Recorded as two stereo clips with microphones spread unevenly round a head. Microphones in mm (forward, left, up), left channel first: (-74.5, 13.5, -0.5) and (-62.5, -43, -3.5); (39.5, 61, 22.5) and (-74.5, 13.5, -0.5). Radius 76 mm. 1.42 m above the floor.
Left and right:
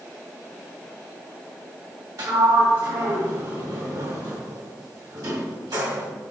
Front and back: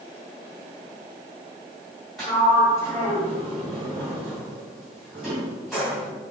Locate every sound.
2.2 s a sliding door: 65° right, 2.5 m